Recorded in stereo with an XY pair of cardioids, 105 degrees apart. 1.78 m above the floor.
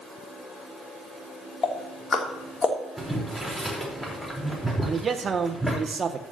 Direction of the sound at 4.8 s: 35° right.